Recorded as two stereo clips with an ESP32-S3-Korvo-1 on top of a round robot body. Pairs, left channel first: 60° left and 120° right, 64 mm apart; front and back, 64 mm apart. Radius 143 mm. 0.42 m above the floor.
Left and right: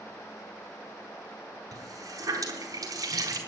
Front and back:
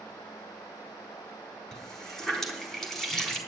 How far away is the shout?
I don't hear a shout.